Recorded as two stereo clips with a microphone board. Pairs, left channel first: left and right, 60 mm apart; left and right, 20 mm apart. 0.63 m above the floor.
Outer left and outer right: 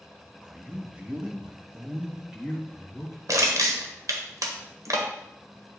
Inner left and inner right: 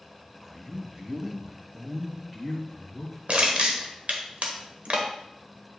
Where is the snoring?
No snoring in this recording.